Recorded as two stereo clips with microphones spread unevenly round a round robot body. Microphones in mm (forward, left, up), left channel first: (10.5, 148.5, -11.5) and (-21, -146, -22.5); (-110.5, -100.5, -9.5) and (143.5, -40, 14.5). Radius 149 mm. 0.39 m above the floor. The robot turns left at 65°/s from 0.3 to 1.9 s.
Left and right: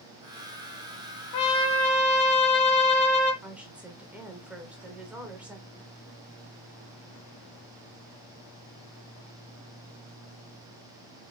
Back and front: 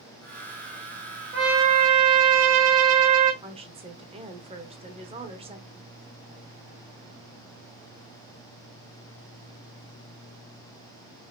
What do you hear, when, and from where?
1.3 s a trumpet: 70° left, 1.2 m; by 3.3 s 35° left, 1.2 m
3.4 s a woman speaking: 25° right, 1.0 m